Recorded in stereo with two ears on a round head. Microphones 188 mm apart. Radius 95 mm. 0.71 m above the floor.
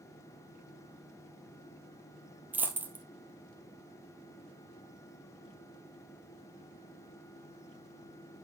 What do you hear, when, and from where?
2.5 s a dropped coin: 10° right (ahead or behind), 1.2 m